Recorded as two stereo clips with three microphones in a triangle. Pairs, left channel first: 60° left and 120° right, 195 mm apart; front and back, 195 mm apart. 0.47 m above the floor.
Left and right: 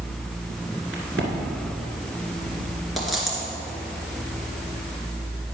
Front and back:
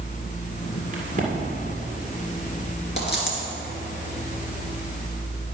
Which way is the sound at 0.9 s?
130° right.